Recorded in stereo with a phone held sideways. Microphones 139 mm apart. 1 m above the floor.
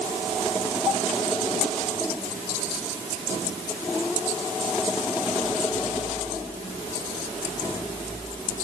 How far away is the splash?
I don't hear a splash.